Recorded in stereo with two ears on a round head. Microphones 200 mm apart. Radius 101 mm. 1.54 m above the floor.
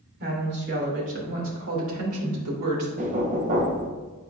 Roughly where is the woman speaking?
Right.